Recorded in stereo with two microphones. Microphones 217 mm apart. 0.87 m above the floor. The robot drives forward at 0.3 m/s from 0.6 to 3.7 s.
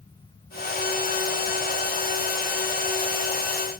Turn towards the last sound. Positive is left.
No sound to turn to.